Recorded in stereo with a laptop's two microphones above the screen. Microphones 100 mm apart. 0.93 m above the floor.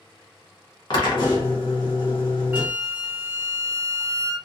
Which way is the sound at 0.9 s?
50° left (ahead or behind).